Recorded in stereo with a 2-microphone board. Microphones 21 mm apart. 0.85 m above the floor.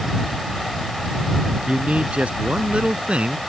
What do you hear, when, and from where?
1.7 s a man speaking: 85° right; by 3.4 s 80° right